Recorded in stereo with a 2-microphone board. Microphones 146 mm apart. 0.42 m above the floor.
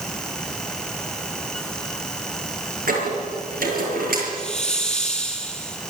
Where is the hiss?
5° left (ahead or behind), 3.5 m.